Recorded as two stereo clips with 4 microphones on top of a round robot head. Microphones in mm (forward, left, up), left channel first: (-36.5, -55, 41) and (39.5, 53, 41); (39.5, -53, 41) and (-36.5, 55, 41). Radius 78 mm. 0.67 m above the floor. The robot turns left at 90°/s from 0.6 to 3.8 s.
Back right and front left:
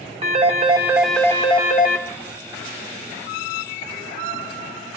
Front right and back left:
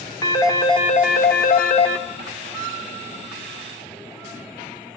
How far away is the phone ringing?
About 1.1 m.